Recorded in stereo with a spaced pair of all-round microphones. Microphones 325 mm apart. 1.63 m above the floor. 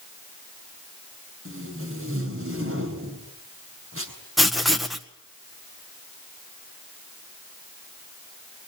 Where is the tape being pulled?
40° right (ahead or behind), 6 m.